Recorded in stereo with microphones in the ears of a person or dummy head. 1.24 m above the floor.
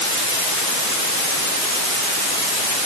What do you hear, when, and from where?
Only background noise.